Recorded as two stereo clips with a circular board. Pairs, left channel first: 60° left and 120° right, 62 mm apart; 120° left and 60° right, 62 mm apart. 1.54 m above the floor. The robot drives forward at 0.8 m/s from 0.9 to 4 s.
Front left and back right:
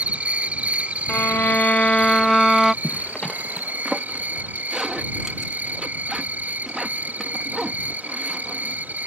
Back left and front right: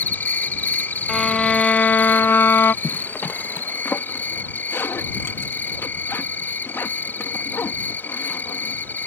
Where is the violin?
35° left; by 2.7 s 155° left.